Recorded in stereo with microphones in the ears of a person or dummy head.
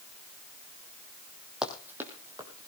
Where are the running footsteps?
Centre (ahead or behind), 2.5 m; by 2.7 s 15° right (ahead or behind), 3.5 m.